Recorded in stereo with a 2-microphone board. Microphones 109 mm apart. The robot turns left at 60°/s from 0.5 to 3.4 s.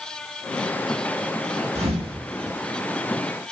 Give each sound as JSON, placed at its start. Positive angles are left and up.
{"t": 1.8, "sound": "a thud", "side_deg": -85, "distance_m": 4.0}